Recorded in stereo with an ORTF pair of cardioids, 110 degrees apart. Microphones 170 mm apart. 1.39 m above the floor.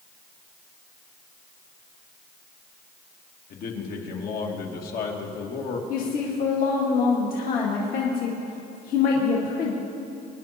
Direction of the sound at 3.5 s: 65° left.